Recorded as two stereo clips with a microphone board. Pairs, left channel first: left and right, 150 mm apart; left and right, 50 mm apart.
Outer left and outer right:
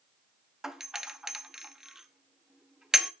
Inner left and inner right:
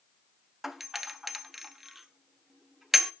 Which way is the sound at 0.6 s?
5° right (ahead or behind).